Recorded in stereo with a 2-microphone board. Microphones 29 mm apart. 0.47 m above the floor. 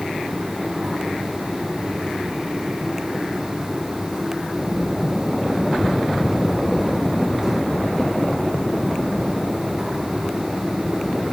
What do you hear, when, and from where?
Only background noise.